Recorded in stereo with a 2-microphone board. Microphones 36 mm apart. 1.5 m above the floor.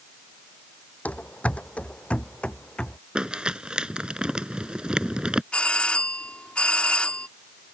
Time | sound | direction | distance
1.1 | running footsteps | 50° left (ahead or behind) | ?
3.1 | crumpling | 25° right (ahead or behind) | ?
5.5 | a doorbell | 35° left (ahead or behind) | ?